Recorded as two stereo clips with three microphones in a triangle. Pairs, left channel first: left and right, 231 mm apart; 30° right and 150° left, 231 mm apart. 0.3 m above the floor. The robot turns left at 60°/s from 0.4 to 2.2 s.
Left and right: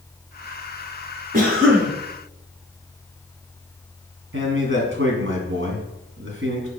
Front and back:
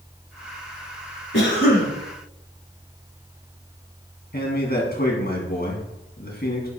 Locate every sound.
1.3 s a cough: 45° right, 1.8 m; by 1.9 s 75° right, 1.8 m
4.3 s a man speaking: 70° right, 2.5 m